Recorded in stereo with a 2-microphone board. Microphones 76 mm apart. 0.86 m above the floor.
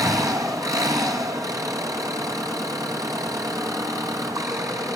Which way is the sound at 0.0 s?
50° right (ahead or behind).